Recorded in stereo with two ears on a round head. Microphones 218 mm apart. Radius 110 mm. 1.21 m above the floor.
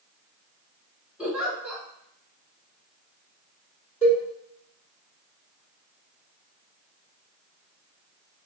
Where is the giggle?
5° right (ahead or behind), 1.2 m.